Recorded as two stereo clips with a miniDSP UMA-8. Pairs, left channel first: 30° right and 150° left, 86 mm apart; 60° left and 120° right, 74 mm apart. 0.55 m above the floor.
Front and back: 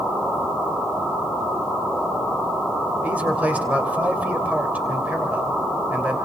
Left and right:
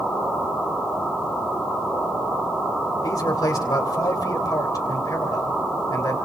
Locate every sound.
3.0 s a man speaking: 80° left, 3 m